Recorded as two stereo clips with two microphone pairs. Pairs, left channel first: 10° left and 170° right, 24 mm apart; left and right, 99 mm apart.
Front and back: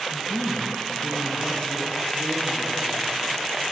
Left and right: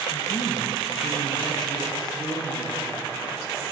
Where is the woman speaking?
60° left, 1.1 m; by 3.6 s 45° left, 5 m.